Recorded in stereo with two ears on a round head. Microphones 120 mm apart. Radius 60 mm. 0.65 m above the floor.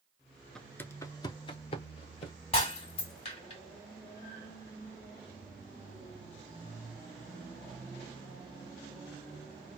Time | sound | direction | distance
0.6 | footsteps | 5° left (ahead or behind) | 0.6 m
2.5 | breaking glass | 45° left (ahead or behind) | 1.6 m